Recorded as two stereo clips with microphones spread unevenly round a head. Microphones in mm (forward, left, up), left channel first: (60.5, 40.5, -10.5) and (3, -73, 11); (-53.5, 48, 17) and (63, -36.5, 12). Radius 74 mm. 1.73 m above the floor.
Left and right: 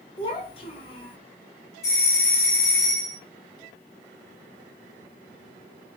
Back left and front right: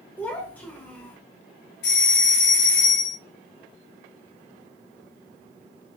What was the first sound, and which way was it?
A child speaking, 80° left.